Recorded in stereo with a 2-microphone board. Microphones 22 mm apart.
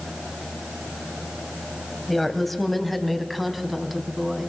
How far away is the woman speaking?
About 2.5 m.